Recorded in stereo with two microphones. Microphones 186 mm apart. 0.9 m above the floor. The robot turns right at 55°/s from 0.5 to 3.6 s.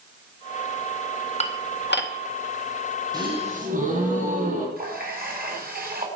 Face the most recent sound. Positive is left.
turn(degrees=-55)  # may be behind; listen again after turning